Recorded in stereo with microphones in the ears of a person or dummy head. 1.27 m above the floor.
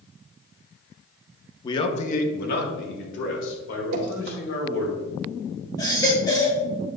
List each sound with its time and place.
1.6 s a man speaking: 20° left (ahead or behind), 1.0 m; by 4.9 s 75° left (ahead or behind), 5 m
3.9 s dripping: 65° right (ahead or behind), 2.5 m
5.8 s a baby crying: 20° left (ahead or behind), 2.0 m